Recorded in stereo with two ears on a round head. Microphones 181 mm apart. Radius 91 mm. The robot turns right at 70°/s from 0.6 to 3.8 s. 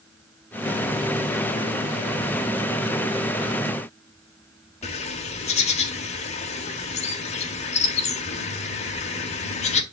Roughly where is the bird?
Left.